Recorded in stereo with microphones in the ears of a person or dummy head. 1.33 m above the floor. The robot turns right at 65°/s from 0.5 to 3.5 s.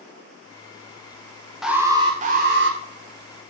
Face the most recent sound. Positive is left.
turn(degrees=-55)